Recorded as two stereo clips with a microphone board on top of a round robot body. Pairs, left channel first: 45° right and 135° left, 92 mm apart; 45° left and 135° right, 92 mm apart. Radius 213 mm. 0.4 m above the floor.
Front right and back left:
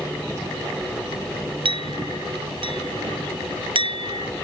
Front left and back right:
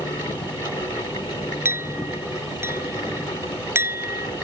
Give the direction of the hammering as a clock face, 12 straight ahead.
I don't hear hammering.